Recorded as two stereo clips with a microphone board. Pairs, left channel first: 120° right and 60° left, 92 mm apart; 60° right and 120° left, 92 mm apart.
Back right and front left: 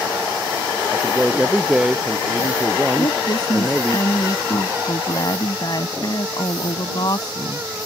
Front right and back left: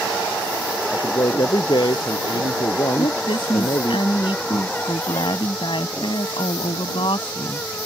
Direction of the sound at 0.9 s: 25° right.